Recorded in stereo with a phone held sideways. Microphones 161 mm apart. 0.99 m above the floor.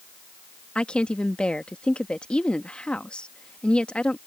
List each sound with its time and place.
0.8 s a woman speaking: 5° left (ahead or behind)